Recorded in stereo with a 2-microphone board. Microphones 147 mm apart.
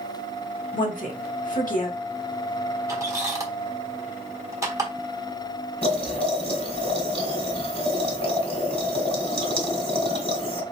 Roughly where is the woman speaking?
Left.